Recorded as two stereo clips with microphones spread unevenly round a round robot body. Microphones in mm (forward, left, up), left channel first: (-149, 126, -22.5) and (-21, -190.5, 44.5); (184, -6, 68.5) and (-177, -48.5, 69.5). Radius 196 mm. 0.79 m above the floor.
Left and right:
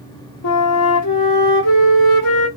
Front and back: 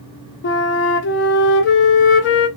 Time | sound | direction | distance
0.4 | a flute | 70° left | 0.8 m